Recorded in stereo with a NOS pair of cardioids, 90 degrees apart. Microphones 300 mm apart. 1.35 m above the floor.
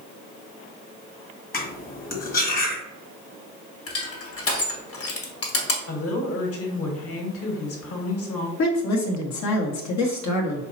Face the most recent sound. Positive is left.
turn(degrees=70)